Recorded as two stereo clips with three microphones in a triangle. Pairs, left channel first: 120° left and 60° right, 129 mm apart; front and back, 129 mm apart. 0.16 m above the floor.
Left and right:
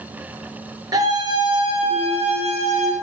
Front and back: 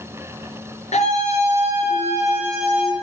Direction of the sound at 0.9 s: 5° right.